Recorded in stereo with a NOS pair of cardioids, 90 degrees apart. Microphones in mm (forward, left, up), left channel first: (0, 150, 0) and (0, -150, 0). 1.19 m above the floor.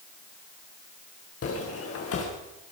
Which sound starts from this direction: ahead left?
Footsteps, at 1.4 s.